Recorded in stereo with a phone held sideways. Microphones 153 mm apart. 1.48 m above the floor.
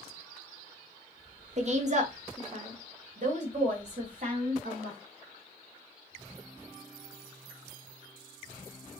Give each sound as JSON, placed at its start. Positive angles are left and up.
{"t": 1.6, "sound": "a woman speaking", "side_deg": -50, "distance_m": 0.8}